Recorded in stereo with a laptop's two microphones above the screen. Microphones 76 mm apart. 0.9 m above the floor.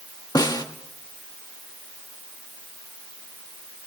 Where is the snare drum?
60° left (ahead or behind), 1.7 m.